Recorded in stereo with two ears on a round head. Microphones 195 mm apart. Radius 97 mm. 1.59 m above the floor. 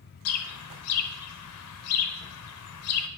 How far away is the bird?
About 0.7 m.